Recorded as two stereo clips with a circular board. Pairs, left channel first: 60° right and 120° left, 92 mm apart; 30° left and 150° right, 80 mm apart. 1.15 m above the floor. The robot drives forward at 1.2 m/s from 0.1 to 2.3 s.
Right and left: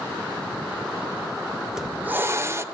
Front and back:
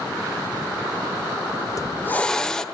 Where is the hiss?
35° left, 1.1 m; by 2.6 s 105° left, 0.9 m.